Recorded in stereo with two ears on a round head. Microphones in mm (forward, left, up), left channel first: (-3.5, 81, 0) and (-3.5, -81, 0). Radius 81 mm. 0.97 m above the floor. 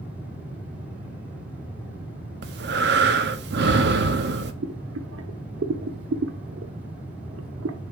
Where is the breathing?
65° right (ahead or behind), 1.2 m.